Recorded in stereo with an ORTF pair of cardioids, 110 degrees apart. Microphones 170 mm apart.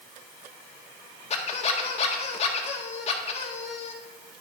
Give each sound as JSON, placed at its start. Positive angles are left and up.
{"t": 1.3, "sound": "a squeak", "azimuth_deg": 40, "distance_m": 1.5}